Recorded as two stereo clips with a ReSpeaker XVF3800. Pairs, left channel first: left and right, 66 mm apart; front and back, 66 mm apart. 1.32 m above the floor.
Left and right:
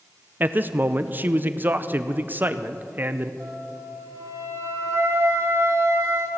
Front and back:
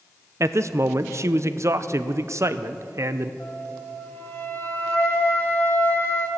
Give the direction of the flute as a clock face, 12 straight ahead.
2 o'clock.